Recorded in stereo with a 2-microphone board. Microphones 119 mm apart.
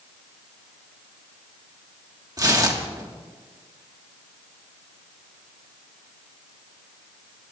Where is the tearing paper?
35° right (ahead or behind), 1.6 m.